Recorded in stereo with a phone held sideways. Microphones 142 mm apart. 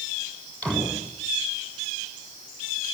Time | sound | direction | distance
0.6 | a door slam | 5° left (ahead or behind) | 8 m